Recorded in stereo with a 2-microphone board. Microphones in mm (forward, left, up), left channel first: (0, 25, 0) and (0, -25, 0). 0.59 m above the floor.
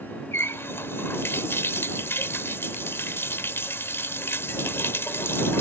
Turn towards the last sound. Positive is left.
turn(degrees=55)  # may be behind; listen again after turning